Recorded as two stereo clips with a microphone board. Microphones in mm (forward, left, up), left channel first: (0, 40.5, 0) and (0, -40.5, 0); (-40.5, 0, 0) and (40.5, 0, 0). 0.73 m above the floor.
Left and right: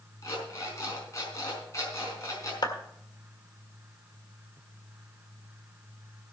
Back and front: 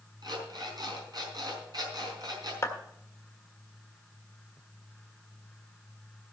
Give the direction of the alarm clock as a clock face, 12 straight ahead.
11 o'clock.